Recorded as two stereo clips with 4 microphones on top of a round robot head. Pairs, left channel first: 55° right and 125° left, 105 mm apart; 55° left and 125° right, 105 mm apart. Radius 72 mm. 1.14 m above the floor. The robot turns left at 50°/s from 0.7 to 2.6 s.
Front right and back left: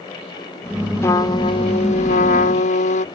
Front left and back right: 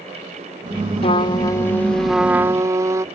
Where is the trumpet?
15° left; by 3.0 s 65° right.